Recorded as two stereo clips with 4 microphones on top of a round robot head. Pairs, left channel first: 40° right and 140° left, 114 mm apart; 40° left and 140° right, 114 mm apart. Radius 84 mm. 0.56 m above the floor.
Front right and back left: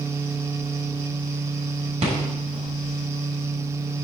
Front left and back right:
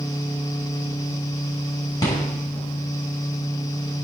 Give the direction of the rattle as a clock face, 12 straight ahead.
9 o'clock.